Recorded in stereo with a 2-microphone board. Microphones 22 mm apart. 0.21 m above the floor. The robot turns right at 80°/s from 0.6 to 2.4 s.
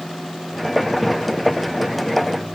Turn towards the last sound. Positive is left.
No sound to turn to.